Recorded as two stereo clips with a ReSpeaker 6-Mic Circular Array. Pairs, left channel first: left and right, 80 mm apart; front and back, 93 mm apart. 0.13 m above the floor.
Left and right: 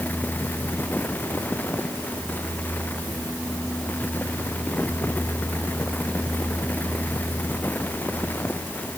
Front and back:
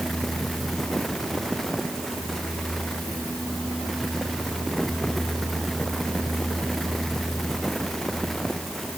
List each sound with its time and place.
Only background noise.